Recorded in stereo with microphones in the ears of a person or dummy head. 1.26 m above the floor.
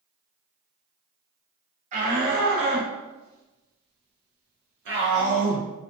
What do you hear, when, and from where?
1.9 s a shout: 40° right (ahead or behind), 1.4 m; by 5.7 s 45° right (ahead or behind), 1.4 m